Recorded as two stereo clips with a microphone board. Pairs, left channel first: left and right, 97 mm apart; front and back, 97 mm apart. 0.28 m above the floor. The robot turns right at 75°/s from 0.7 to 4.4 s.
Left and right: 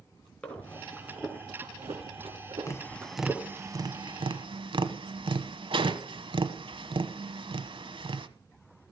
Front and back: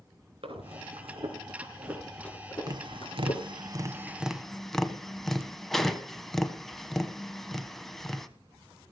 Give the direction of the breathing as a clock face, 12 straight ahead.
6 o'clock.